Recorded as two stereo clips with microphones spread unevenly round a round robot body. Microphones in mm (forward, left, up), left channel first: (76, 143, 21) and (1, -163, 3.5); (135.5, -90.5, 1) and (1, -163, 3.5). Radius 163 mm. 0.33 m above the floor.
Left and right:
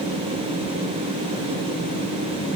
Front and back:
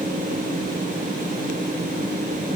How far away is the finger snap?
I don't hear a finger snap.